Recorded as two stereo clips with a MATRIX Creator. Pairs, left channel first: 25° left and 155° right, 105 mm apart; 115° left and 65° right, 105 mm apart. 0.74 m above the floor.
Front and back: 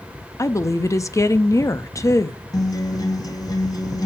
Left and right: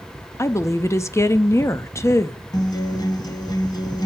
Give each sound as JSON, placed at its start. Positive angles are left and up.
{"t": 0.4, "sound": "a woman speaking", "azimuth_deg": 65, "distance_m": 0.6}
{"t": 2.5, "sound": "a guitar", "azimuth_deg": 70, "distance_m": 1.0}